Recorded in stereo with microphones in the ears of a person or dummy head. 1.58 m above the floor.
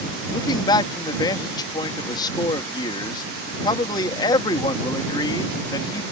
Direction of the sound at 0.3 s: 20° left (ahead or behind).